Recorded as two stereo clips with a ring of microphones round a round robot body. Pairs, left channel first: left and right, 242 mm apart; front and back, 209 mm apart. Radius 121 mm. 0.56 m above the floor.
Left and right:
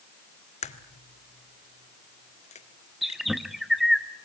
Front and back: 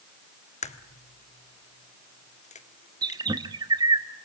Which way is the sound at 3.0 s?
Straight behind.